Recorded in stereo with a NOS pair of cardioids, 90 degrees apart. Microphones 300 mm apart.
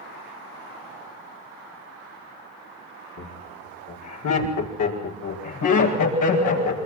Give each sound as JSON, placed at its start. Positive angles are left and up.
{"t": 3.2, "sound": "laughter", "azimuth_deg": 60, "distance_m": 5.0}